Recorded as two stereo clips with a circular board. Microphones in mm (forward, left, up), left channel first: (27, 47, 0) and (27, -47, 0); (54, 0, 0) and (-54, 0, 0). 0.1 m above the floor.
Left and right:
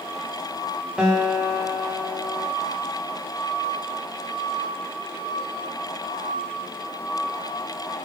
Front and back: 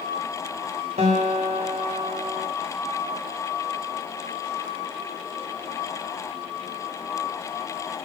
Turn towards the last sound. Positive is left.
turn(degrees=-170)